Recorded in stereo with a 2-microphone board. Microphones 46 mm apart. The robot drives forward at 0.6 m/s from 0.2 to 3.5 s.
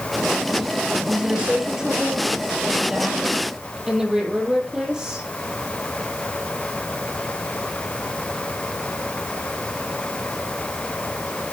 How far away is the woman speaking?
About 3.5 m.